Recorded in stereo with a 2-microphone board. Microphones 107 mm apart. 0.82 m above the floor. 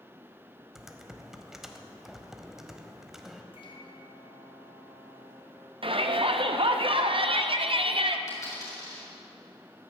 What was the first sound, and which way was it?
Typing on a keyboard, 5° right (ahead or behind).